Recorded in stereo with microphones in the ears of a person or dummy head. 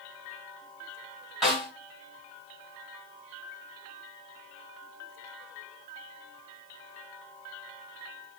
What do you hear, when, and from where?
1.4 s a snare drum: centre (ahead or behind), 6.5 m